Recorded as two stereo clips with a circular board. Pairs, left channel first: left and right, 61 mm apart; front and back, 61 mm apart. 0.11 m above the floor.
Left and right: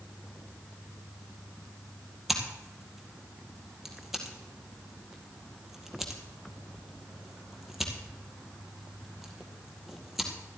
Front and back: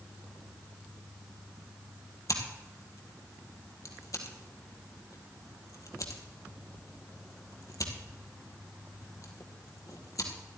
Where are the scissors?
5° right, 2.0 m.